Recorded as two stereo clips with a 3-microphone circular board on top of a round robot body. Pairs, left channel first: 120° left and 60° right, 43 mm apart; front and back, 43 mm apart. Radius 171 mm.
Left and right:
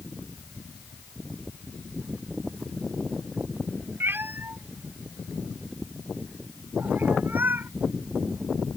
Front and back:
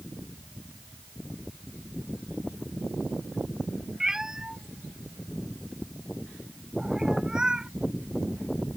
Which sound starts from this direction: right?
A cat meowing, at 4.0 s.